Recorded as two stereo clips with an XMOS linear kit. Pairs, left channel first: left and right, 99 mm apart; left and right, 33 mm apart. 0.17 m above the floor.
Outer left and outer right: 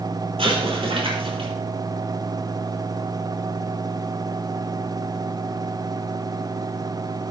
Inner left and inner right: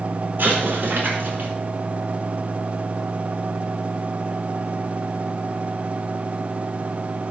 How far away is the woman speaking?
No woman speaking in this recording.